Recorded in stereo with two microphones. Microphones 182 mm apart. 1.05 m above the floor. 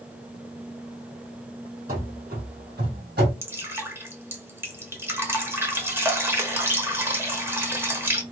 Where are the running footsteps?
50° right (ahead or behind), 2.5 m; by 3.3 s 65° right (ahead or behind), 2.5 m.